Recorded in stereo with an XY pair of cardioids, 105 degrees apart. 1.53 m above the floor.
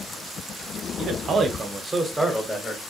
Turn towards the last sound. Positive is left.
turn(degrees=20)